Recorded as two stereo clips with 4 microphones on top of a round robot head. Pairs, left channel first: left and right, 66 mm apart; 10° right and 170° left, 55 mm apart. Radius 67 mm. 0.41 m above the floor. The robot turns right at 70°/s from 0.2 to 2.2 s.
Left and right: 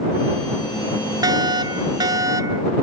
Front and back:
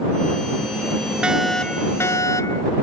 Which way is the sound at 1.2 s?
115° right.